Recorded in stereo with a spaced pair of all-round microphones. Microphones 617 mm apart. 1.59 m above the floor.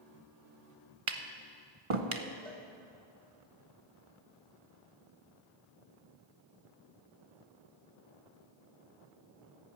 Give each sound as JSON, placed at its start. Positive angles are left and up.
{"t": 1.1, "sound": "tapping", "side_deg": -50, "distance_m": 0.9}
{"t": 2.5, "sound": "a cowbell", "side_deg": 15, "distance_m": 2.0}